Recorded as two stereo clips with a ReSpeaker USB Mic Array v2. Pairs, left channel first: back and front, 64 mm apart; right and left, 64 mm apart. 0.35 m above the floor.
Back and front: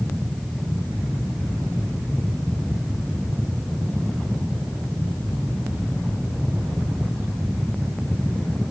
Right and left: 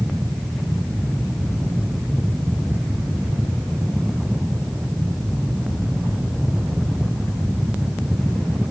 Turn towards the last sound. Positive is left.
No sound to turn to.